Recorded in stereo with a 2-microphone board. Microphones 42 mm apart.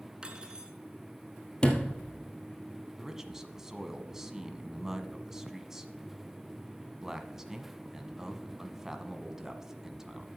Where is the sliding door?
25° left (ahead or behind), 1.7 m.